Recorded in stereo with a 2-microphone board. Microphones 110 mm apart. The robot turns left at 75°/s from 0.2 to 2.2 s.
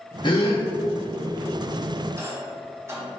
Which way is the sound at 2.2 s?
30° right (ahead or behind).